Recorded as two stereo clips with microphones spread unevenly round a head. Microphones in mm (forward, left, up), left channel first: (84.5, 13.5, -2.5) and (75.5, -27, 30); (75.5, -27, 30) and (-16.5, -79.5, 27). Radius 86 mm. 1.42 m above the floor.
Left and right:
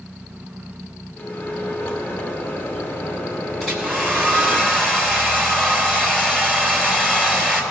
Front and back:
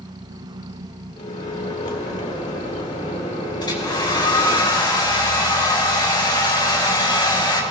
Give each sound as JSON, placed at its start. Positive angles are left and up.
{"t": 1.2, "sound": "a microwave", "azimuth_deg": 30, "distance_m": 1.5}
{"t": 3.6, "sound": "a hair dryer", "azimuth_deg": -15, "distance_m": 3.0}